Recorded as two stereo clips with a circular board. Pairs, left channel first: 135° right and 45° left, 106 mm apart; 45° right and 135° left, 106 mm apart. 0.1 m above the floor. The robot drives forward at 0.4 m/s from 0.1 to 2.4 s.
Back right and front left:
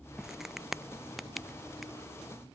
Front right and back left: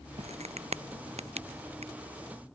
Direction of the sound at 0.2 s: 130° left.